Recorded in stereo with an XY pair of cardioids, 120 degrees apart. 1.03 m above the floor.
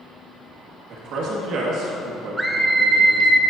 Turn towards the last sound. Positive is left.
turn(degrees=-15)